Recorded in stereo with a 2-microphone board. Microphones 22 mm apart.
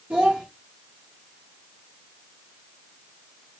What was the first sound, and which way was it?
A child speaking, 80° right.